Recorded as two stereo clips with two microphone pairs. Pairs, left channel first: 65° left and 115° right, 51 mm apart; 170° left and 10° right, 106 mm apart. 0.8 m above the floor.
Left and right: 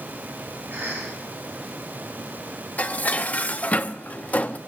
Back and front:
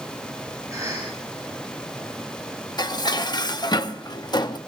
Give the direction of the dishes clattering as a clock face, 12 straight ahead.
8 o'clock.